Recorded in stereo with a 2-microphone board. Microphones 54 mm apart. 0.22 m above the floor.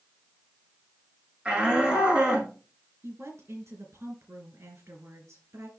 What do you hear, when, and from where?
1.4 s a shout: 15° right (ahead or behind), 4.5 m; by 2.5 s 20° right (ahead or behind), 5 m
3.0 s a woman speaking: 65° right (ahead or behind), 3.5 m